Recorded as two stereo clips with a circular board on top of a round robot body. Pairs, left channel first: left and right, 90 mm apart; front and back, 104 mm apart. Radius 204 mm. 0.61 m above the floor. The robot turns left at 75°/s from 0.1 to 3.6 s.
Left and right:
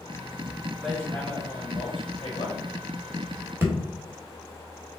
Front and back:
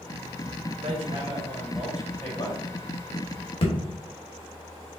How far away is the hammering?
About 1.7 m.